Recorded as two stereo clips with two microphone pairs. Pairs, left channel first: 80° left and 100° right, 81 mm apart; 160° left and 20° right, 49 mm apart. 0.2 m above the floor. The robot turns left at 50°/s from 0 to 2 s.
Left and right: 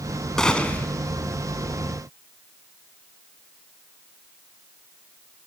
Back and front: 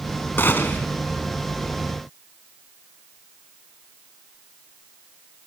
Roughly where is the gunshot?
Behind.